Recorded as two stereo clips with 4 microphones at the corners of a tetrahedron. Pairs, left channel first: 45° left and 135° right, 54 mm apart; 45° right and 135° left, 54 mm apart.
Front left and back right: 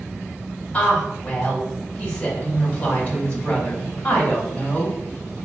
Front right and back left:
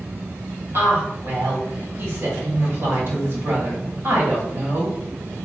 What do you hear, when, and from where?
0.7 s a woman speaking: 110° left, 1.6 m